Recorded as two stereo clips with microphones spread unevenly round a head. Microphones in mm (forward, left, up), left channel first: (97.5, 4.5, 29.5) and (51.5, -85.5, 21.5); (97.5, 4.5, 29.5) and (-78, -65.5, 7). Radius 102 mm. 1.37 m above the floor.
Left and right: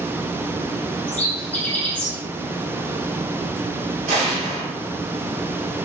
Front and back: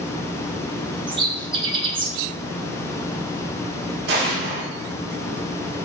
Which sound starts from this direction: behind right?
An explosion, at 4.1 s.